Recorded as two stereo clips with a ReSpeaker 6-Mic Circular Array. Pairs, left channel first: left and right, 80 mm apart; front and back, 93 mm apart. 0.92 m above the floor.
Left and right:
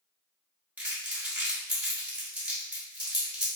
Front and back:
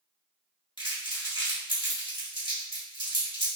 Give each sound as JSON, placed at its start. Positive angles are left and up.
{"t": 0.8, "sound": "crumpling", "azimuth_deg": -160, "distance_m": 1.1}